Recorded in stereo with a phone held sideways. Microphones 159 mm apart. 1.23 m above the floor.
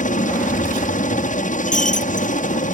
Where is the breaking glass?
55° left (ahead or behind).